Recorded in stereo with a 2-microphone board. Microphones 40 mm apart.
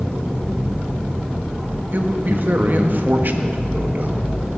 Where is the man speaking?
55° right (ahead or behind), 1.3 m.